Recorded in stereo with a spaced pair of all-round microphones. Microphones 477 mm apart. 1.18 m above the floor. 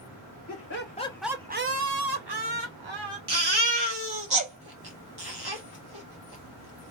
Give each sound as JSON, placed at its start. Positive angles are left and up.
{"t": 0.5, "sound": "laughter", "side_deg": 35, "distance_m": 0.9}
{"t": 3.3, "sound": "a baby crying", "side_deg": -55, "distance_m": 1.1}